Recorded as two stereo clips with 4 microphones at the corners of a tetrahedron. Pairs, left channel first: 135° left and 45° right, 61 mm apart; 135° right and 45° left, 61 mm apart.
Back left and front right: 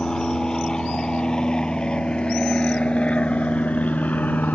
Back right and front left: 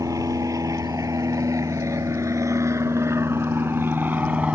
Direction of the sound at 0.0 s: 55° left.